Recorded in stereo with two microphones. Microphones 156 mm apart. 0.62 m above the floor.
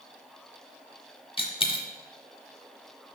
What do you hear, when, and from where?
1.4 s a dropped coin: 35° left (ahead or behind), 0.8 m